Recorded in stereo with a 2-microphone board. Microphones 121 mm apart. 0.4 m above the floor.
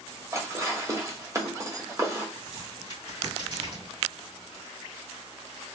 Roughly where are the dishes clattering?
Right.